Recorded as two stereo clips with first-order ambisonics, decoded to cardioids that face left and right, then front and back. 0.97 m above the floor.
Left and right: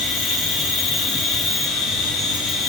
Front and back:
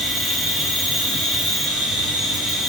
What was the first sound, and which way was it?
An insect, 90° left.